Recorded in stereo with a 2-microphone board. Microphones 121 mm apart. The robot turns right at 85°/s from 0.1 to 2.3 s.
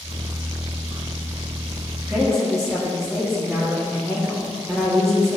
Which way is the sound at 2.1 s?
20° right (ahead or behind).